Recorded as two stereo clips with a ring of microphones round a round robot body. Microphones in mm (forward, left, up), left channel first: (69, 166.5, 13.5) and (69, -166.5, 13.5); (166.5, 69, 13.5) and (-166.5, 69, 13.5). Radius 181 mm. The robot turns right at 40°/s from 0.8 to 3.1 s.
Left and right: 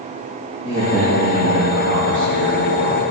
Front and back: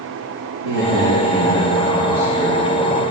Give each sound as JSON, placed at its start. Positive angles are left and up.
{"t": 0.6, "sound": "a man speaking", "azimuth_deg": -165, "distance_m": 5.5}